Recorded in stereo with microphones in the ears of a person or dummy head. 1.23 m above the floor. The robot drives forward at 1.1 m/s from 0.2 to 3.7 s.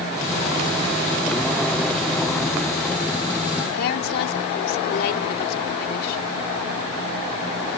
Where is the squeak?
No squeak in this recording.